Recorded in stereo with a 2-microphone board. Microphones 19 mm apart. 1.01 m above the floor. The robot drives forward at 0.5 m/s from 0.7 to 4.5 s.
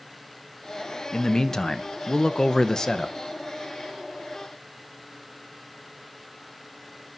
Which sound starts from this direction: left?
A man speaking, at 1.1 s.